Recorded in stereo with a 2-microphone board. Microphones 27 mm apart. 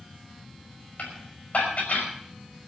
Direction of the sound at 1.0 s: 80° left.